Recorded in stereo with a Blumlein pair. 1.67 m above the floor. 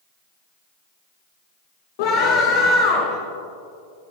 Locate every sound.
2.0 s a scream: 50° left, 2.5 m